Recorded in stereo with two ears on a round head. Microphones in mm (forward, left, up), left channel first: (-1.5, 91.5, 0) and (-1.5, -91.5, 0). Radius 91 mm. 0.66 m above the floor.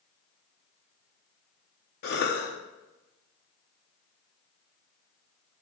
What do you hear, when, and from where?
2.0 s a cough: 50° left (ahead or behind), 0.7 m